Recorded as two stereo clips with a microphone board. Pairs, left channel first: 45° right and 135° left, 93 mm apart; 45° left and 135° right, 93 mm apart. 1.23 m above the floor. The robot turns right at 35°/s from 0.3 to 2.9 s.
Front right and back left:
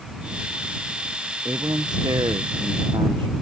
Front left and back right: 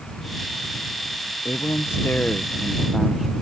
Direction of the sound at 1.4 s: 85° left.